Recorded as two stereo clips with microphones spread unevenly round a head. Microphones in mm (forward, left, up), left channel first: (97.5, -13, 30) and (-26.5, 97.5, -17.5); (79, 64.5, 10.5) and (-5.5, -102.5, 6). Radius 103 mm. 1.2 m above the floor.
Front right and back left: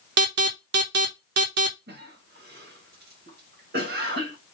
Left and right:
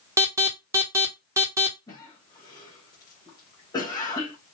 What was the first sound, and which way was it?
An alarm, 165° left.